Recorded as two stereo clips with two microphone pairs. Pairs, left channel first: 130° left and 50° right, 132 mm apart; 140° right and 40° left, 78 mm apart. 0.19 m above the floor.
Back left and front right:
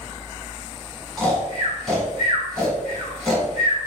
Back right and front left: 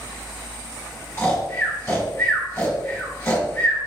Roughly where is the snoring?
Behind right.